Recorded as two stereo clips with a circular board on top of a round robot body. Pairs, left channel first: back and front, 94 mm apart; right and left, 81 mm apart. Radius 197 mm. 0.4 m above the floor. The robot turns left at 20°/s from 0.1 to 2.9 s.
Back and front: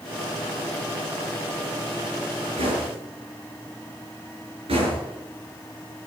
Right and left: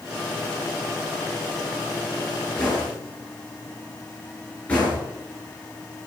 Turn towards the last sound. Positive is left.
turn(degrees=-20)